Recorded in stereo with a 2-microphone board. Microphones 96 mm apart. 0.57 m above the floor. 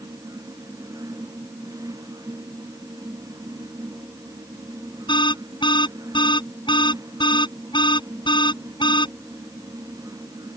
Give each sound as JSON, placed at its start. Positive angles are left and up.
{"t": 5.1, "sound": "an alarm", "side_deg": 60}